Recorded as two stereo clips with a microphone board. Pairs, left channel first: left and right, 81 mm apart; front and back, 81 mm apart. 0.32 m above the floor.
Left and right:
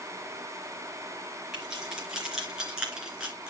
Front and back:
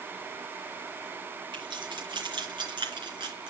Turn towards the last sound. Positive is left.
turn(degrees=-165)